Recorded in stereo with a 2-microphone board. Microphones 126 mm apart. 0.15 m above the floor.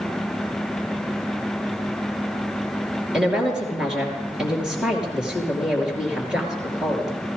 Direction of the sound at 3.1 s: 5° right (ahead or behind).